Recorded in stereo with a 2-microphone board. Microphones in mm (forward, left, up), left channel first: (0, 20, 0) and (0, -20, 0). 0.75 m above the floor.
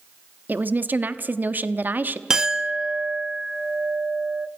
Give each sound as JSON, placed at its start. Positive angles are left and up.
{"t": 0.5, "sound": "a woman speaking", "side_deg": -50, "distance_m": 0.9}
{"t": 2.3, "sound": "a clink", "side_deg": -20, "distance_m": 0.6}